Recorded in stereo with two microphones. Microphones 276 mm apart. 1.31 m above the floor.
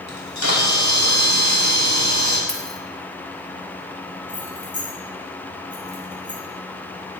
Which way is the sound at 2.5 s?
Centre (ahead or behind).